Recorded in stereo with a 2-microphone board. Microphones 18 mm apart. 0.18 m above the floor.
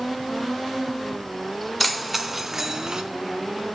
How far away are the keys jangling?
About 1.4 m.